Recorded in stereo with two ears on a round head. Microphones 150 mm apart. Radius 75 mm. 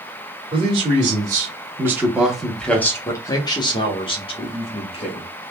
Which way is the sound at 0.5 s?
30° right (ahead or behind).